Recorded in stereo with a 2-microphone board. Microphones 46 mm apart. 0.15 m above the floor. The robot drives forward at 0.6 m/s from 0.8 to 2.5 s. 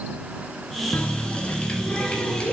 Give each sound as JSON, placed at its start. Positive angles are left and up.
{"t": 0.9, "sound": "a running tap", "side_deg": 35, "distance_m": 0.9}